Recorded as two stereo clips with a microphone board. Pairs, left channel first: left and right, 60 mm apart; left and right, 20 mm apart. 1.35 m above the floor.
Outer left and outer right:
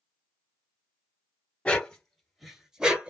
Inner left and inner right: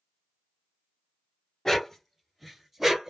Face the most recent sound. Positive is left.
turn(degrees=-20)  # may be behind; listen again after turning